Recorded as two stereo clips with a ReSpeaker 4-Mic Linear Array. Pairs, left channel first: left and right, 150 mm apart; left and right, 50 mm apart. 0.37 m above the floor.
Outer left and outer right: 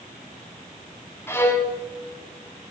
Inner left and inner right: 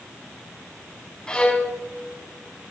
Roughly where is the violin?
Centre.